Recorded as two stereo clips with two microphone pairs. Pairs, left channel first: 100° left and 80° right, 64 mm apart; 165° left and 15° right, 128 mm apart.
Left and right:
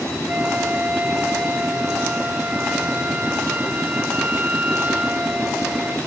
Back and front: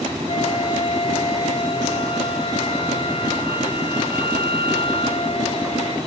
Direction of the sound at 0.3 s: 150° right.